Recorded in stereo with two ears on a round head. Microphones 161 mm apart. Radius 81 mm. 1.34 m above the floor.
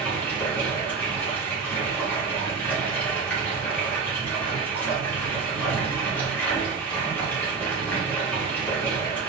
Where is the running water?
10° left (ahead or behind), 1.5 m.